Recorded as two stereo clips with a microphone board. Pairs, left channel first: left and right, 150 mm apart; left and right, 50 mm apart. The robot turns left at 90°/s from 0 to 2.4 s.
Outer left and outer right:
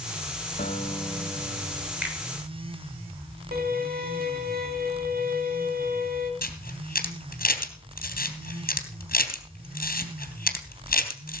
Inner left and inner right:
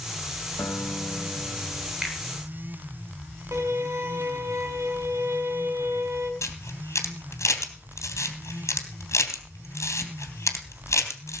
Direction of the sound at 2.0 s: 10° right (ahead or behind).